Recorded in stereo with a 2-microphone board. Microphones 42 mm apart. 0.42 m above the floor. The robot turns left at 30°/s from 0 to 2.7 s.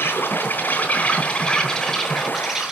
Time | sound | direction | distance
0.0 | an insect | 65° left | 3 m